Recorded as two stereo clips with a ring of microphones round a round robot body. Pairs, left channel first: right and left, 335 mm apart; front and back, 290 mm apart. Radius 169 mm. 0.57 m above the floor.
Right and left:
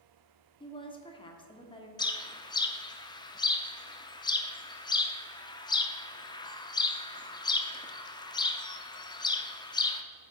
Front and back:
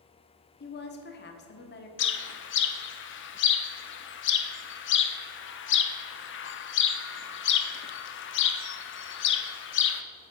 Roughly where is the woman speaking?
Ahead right.